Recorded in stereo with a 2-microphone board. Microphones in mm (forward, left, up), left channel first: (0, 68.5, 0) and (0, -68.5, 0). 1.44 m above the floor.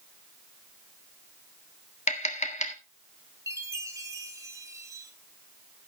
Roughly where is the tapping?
Left.